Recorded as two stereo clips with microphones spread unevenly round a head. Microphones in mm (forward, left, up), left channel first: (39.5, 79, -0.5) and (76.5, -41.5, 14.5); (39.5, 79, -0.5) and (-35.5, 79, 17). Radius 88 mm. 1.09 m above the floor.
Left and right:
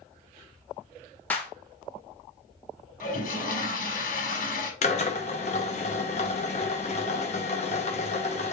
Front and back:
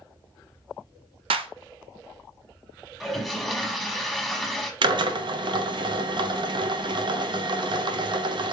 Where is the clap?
175° right, 0.6 m.